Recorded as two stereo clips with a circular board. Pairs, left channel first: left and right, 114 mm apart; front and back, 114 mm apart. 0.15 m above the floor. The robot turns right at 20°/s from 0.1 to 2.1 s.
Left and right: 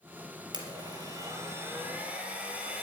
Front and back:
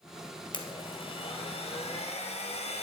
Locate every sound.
0.5 s a blender: 45° right, 2 m; by 2.8 s 15° right, 2 m